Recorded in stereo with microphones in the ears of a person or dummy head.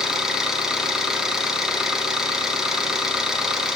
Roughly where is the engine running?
Centre.